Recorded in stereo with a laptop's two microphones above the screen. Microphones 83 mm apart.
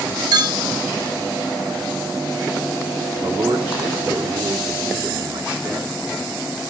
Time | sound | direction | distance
0.3 | a clink | 55° right (ahead or behind) | 1.0 m
3.2 | a man speaking | 85° right | 2.0 m